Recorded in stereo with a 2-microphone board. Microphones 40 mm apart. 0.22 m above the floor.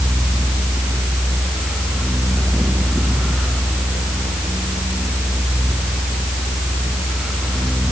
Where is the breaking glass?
No breaking glass in this recording.